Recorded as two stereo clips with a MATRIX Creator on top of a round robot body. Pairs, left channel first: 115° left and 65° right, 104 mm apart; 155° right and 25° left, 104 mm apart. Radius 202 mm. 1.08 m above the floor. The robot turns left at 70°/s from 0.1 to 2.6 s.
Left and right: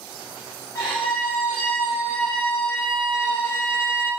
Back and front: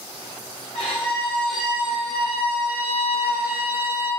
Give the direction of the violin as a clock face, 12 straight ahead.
6 o'clock.